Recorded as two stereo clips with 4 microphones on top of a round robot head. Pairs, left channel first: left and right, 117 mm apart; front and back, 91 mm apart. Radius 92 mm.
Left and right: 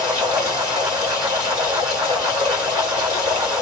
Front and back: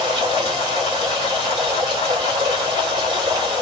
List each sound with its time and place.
0.0 s running water: 150° right, 1.5 m